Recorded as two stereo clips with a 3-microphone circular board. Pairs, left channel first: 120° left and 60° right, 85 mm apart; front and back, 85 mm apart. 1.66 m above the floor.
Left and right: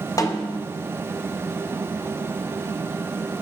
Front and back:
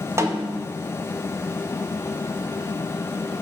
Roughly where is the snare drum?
Behind left.